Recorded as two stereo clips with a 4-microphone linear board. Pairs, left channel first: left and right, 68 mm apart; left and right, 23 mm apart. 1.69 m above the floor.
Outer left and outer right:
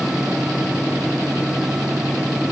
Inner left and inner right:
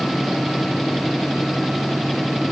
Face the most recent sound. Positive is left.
No sound to turn to.